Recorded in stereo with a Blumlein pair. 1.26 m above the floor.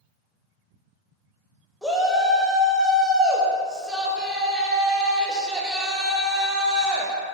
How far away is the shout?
About 0.8 m.